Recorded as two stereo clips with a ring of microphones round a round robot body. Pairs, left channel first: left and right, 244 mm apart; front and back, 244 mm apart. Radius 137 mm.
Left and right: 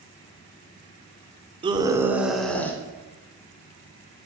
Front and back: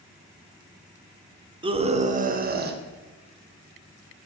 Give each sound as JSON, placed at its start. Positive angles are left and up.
{"t": 1.6, "sound": "a scream", "azimuth_deg": -135, "distance_m": 0.9}